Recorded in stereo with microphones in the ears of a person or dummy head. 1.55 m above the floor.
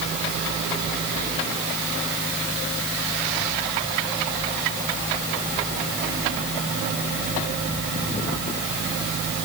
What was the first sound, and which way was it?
Only background noise.